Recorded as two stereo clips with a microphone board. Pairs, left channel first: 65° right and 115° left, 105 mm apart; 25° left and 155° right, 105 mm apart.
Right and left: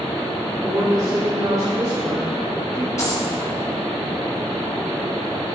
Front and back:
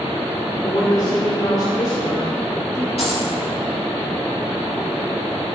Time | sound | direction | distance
0.6 | a woman speaking | 60° left | 1.5 m
3.0 | a dropped coin | 5° right | 2.5 m